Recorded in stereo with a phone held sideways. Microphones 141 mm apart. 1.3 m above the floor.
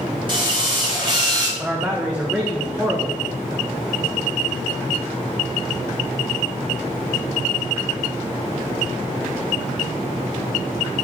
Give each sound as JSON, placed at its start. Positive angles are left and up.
{"t": 0.3, "sound": "a drill", "side_deg": -35, "distance_m": 5.0}
{"t": 1.6, "sound": "a man speaking", "side_deg": -10, "distance_m": 1.7}